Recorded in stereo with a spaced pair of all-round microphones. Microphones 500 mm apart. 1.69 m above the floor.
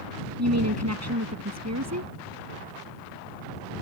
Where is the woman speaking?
30° right (ahead or behind).